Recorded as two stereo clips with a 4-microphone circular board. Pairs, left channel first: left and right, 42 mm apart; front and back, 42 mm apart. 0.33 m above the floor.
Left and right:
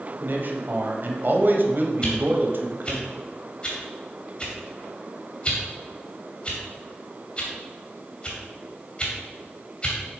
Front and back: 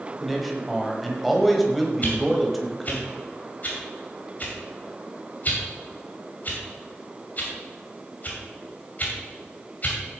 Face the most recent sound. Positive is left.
turn(degrees=30)